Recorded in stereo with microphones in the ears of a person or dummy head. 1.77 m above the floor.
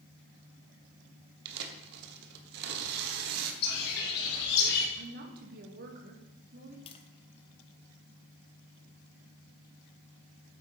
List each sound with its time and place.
1.4 s tearing paper: 65° right (ahead or behind), 1.2 m
3.6 s a bird: 55° left (ahead or behind), 2 m
5.0 s a woman speaking: 55° right (ahead or behind), 2 m
6.9 s tapping: 30° left (ahead or behind), 0.7 m